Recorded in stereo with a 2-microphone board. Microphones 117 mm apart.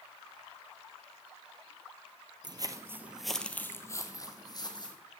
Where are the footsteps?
40° right (ahead or behind), 0.9 m; by 5.0 s 40° left (ahead or behind), 1.9 m.